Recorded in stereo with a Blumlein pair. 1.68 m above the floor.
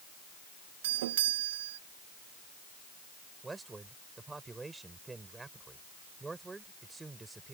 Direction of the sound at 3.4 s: 10° right.